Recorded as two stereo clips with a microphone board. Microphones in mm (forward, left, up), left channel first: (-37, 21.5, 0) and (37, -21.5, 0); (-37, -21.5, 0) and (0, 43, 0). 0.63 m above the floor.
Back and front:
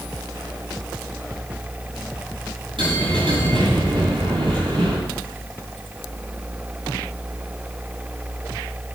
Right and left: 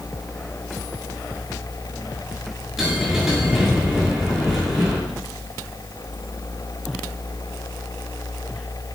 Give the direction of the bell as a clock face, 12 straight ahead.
1 o'clock.